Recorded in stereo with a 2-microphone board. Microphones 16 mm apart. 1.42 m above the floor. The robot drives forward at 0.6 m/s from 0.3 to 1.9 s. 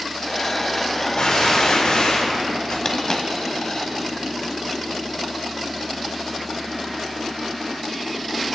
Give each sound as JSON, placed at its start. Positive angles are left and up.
{"t": 1.2, "sound": "a gunshot", "side_deg": 70, "distance_m": 3.5}
{"t": 2.9, "sound": "a dropped coin", "side_deg": 35, "distance_m": 1.7}